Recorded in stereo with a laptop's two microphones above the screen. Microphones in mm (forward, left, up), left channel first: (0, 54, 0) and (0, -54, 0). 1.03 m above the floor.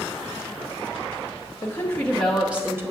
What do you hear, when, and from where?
1.6 s a woman speaking: 25° left (ahead or behind), 0.7 m; by 2.9 s 25° right (ahead or behind), 0.8 m